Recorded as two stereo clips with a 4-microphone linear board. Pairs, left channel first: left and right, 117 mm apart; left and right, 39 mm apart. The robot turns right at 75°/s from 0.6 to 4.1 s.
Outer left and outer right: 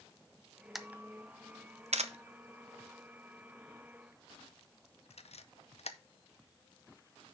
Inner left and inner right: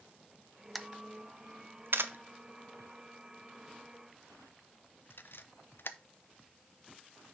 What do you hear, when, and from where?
0.8 s a camera shutter: centre (ahead or behind), 0.6 m; by 6.0 s 70° left (ahead or behind), 0.6 m